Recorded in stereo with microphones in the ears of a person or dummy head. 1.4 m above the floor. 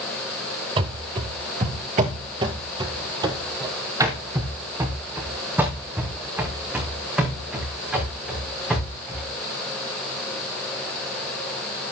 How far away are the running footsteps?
About 1.7 m.